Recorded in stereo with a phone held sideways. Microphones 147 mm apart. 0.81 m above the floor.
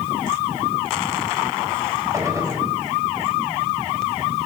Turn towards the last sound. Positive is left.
turn(degrees=-20)  # may be behind; listen again after turning